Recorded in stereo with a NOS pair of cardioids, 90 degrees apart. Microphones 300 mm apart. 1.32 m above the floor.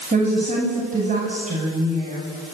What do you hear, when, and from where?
0.1 s a woman speaking: 25° right, 9 m